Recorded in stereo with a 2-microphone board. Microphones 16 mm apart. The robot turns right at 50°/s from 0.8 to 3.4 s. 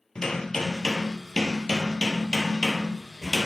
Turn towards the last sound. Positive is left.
turn(degrees=-170)